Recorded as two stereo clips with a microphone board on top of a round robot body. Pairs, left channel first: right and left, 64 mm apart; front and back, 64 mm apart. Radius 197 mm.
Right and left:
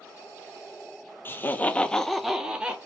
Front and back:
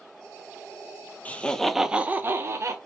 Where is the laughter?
55° right, 0.7 m; by 2.8 s 160° left, 0.8 m.